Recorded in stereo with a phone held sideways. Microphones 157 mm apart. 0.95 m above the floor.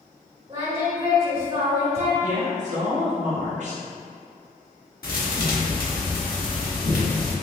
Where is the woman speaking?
50° right (ahead or behind), 1.1 m.